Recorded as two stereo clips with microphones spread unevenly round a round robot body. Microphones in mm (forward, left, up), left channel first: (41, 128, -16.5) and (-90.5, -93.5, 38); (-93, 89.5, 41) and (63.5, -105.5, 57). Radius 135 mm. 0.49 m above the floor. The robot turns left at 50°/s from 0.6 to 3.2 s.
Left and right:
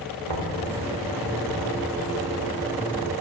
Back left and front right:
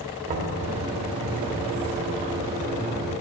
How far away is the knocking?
About 1.3 m.